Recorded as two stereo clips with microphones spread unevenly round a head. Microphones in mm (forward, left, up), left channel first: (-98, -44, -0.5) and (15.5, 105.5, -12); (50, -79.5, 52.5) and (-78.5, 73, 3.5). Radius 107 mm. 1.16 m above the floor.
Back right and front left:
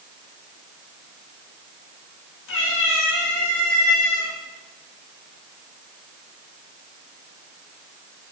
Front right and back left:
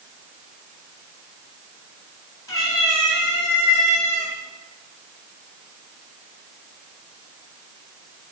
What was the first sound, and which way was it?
A cat meowing, 125° right.